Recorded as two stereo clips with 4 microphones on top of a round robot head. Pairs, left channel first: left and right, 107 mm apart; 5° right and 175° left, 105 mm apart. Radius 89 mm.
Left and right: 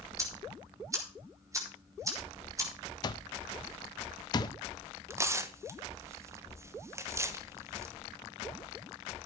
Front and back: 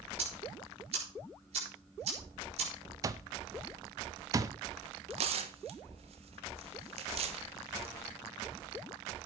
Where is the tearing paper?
155° right, 1.2 m.